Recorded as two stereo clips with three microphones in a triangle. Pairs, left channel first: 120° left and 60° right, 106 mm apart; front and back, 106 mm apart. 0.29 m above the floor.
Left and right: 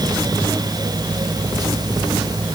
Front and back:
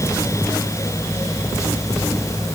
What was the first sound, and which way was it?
Only background noise.